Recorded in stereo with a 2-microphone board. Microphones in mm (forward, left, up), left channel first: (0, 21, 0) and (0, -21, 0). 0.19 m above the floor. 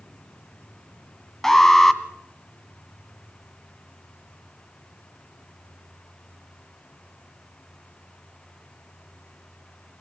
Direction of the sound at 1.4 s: 10° left (ahead or behind).